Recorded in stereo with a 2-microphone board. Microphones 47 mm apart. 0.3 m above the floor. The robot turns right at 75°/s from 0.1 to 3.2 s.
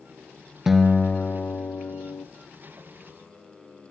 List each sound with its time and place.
0.7 s a guitar: 5° right, 0.7 m; by 2.3 s 115° left, 0.7 m